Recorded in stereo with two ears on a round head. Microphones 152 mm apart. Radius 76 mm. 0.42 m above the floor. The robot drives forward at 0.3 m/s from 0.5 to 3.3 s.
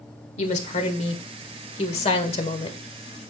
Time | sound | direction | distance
0.4 | a woman speaking | 40° left (ahead or behind) | 1.6 m